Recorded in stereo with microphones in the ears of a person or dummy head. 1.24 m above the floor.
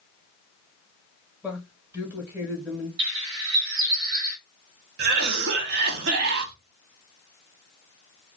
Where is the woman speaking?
15° right (ahead or behind), 1.0 m.